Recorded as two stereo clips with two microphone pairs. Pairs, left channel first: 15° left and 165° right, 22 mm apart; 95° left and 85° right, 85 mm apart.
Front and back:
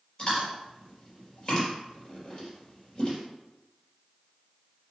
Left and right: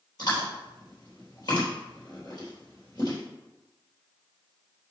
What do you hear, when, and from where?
0.2 s chewing: 65° left, 3.5 m